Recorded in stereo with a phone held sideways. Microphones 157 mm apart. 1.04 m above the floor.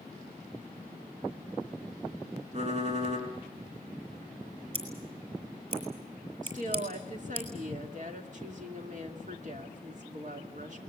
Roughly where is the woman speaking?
Right.